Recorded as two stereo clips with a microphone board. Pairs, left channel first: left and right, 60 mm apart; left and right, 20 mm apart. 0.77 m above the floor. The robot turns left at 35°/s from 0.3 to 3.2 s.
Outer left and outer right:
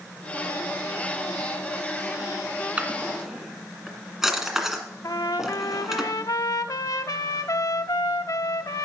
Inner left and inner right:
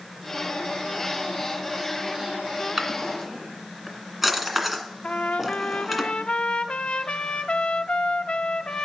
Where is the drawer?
20° right (ahead or behind), 1.9 m; by 6.0 s 5° right (ahead or behind), 1.9 m.